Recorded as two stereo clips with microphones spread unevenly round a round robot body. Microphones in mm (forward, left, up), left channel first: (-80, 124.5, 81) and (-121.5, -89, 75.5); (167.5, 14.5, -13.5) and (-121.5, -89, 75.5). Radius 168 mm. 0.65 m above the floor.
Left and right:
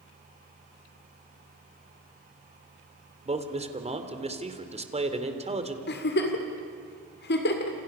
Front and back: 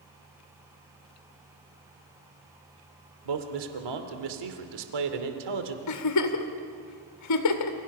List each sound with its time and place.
3.2 s a man speaking: 160° right, 3 m
5.9 s a giggle: 35° left, 2 m